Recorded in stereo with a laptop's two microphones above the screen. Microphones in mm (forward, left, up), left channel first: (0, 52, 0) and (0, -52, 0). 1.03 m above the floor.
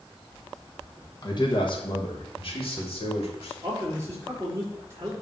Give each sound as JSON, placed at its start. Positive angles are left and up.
{"t": 1.2, "sound": "a man speaking", "side_deg": 45, "distance_m": 1.3}
{"t": 3.6, "sound": "a man speaking", "side_deg": -30, "distance_m": 3.5}